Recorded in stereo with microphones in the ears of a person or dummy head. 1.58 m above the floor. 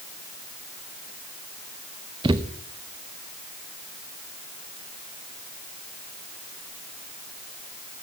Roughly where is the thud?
Centre.